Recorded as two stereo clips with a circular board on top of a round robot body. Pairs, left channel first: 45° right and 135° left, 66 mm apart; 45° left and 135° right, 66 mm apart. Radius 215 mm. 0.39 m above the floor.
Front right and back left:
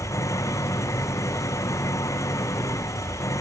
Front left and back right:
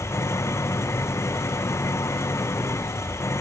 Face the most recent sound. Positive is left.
turn(degrees=-5)